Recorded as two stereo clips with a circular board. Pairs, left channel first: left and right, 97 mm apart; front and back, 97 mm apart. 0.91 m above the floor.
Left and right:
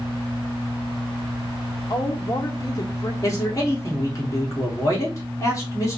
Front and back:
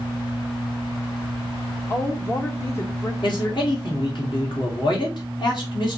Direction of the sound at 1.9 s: 55° left.